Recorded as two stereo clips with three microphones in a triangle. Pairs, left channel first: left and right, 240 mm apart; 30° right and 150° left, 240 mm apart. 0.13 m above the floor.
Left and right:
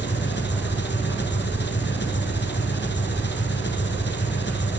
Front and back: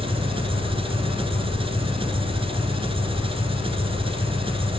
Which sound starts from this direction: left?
An engine running, at 0.0 s.